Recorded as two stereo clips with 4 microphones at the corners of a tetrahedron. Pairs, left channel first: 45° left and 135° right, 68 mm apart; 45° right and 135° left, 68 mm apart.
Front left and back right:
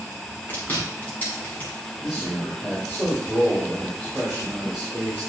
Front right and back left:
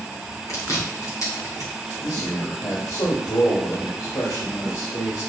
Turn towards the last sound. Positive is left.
turn(degrees=-55)